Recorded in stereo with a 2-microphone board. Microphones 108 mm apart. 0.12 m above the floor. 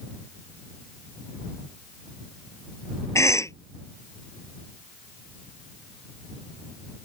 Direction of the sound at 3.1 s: 25° left (ahead or behind).